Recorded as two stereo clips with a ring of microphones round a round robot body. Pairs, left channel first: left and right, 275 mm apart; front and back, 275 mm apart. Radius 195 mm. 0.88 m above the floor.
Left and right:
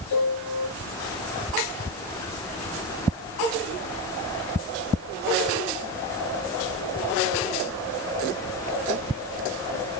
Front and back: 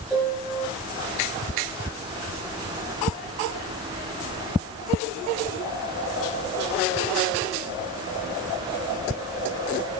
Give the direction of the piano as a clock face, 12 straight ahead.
9 o'clock.